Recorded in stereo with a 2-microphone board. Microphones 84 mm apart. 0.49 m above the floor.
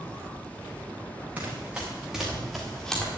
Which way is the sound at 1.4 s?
20° right (ahead or behind).